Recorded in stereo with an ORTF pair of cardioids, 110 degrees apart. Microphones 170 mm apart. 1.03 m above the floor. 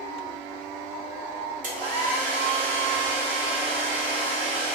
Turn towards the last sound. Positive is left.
turn(degrees=-55)